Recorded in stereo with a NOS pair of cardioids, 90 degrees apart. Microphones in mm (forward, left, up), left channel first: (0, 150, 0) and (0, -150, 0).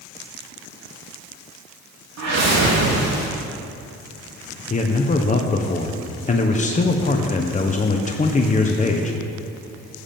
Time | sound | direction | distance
2.2 | a whoosh | 60° right | 3.5 m
4.7 | a man speaking | 25° left | 1.2 m